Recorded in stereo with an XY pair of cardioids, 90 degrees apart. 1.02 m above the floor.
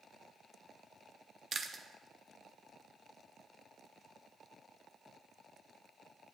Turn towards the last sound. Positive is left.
turn(degrees=-45)